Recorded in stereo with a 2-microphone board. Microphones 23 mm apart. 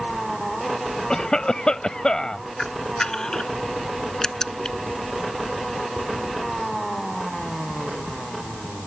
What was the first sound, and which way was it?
A cough, 35° left (ahead or behind).